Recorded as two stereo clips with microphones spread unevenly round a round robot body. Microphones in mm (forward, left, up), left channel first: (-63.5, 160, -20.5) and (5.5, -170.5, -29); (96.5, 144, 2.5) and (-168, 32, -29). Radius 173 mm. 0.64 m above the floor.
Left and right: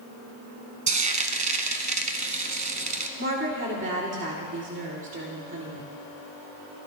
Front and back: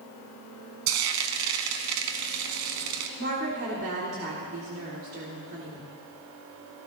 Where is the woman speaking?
125° right, 1.8 m.